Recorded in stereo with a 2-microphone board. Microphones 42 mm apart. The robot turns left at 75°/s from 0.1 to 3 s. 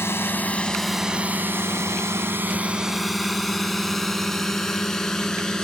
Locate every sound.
0.0 s a drone: 65° left (ahead or behind); by 5.7 s 15° left (ahead or behind)